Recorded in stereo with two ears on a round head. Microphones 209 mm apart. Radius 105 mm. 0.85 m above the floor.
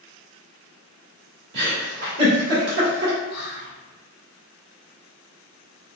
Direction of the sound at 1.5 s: 45° right (ahead or behind).